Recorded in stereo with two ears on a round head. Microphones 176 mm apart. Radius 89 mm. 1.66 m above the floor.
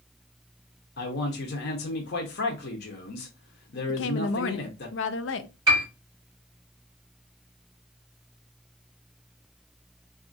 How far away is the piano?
About 3 m.